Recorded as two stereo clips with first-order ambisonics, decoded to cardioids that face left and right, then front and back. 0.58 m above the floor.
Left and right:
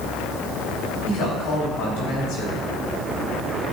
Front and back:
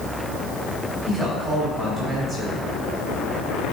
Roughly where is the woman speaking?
Left.